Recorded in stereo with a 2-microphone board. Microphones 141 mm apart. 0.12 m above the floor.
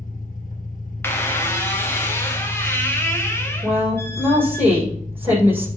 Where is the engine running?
70° left (ahead or behind), 2 m.